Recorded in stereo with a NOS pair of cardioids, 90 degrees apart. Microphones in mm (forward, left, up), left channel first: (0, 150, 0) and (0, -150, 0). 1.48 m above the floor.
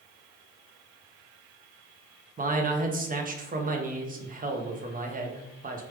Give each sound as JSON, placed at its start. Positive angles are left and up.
{"t": 2.4, "sound": "a man speaking", "azimuth_deg": -30, "distance_m": 0.7}